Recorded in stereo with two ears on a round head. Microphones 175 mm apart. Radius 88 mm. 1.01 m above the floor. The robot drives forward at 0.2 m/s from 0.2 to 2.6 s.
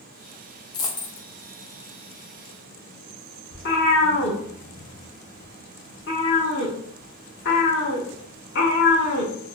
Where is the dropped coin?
20° left (ahead or behind), 0.5 m.